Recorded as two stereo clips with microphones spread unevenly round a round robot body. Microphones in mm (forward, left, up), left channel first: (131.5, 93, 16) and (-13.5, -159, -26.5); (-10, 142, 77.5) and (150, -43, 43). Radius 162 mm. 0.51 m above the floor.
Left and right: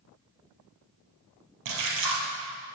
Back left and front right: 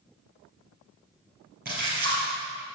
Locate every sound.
1.6 s a splash: 110° right, 3 m